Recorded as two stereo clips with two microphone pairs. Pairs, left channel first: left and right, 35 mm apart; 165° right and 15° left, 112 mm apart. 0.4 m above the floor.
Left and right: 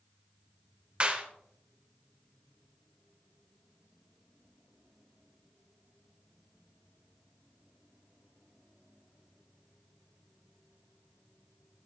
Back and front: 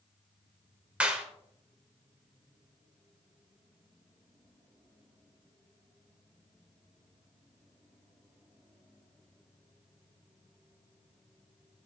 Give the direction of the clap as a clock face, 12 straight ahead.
2 o'clock.